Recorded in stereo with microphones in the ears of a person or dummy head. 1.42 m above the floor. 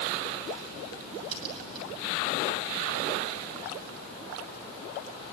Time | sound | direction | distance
1.3 | a crack | 30° right (ahead or behind) | 7 m